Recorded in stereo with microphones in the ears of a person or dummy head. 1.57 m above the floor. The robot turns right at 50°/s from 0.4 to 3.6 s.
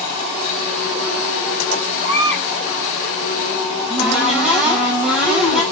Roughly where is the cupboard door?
Centre.